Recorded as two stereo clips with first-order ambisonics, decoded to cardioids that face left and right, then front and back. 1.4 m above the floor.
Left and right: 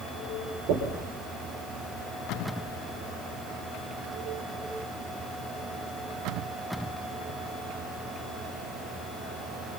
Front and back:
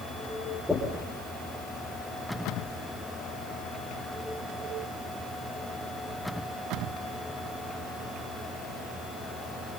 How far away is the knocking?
About 5 m.